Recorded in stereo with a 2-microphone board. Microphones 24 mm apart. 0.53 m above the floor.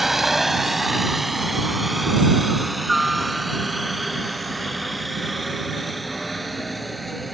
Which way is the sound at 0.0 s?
15° right (ahead or behind).